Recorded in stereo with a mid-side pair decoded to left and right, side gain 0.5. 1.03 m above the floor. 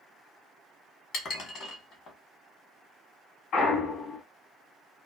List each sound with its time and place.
1.1 s dishes clattering: 60° left, 1.4 m
3.5 s a clunk: 65° left, 1.5 m